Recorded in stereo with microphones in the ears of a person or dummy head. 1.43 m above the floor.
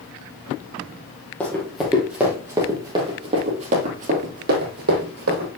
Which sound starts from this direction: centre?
Running footsteps, at 1.4 s.